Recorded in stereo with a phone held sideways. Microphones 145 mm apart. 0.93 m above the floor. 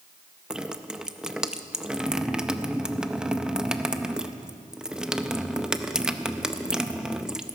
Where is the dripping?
5° right (ahead or behind), 0.6 m.